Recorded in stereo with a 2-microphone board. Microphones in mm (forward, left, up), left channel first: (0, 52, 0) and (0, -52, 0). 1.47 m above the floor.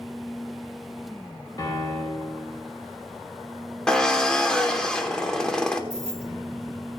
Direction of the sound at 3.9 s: 5° left (ahead or behind).